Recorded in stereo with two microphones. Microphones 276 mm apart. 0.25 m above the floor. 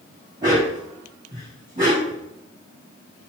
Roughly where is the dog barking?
Centre.